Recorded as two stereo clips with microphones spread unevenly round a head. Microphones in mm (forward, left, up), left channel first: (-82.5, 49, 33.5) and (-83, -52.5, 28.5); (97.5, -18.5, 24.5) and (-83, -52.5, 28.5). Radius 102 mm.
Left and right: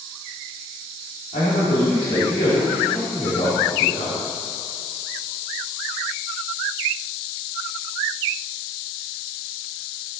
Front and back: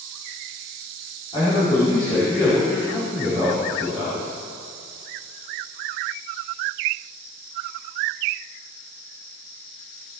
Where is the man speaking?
75° left, 4.5 m.